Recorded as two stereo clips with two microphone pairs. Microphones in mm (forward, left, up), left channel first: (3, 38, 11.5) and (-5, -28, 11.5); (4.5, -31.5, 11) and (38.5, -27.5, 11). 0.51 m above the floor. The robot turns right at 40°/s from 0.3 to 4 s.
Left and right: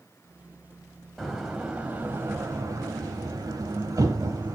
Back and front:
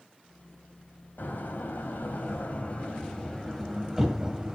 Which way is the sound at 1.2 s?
170° left.